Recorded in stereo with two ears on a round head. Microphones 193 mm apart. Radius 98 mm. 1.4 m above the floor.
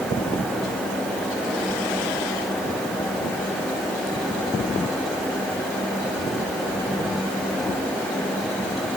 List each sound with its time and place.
Only background noise.